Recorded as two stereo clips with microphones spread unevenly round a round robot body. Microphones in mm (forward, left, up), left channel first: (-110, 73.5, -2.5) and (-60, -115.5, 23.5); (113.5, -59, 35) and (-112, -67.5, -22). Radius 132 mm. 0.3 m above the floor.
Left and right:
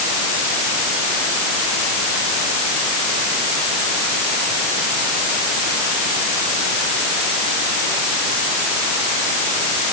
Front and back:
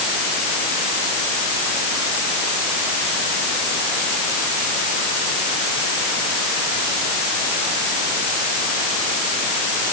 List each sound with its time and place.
Only background noise.